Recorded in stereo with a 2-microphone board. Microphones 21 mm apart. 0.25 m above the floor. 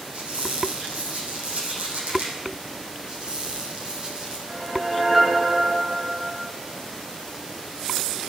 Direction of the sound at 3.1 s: 30° right (ahead or behind).